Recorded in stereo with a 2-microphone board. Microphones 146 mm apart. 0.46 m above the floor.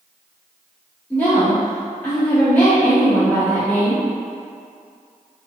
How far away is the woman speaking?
About 1.4 m.